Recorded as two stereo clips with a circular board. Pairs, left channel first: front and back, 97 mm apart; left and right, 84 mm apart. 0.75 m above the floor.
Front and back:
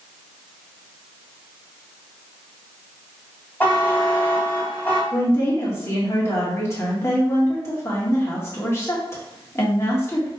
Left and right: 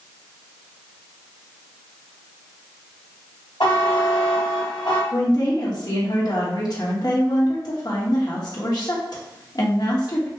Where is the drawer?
I don't hear a drawer.